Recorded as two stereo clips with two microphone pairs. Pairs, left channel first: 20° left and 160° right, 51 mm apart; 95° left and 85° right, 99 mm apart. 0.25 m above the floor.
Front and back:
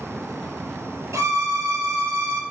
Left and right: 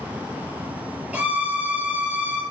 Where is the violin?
165° right, 0.7 m.